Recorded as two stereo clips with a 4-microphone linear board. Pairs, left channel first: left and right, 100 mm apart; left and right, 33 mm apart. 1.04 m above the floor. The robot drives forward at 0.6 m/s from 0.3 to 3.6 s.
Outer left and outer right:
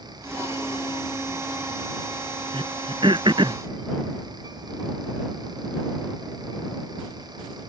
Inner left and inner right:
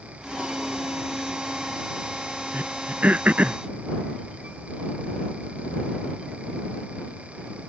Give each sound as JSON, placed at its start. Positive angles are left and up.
{"t": 2.5, "sound": "throat clearing", "side_deg": -55}